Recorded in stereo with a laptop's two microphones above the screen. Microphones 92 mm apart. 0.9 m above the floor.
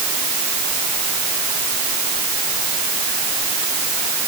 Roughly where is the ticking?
I don't hear ticking.